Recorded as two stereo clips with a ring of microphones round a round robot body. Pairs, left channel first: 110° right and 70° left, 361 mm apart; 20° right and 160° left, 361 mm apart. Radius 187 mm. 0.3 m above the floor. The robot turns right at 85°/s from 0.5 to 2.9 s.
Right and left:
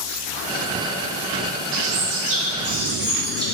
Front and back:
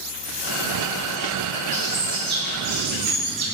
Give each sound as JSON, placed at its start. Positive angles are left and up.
{"t": 1.7, "sound": "a bird", "azimuth_deg": 45, "distance_m": 2.5}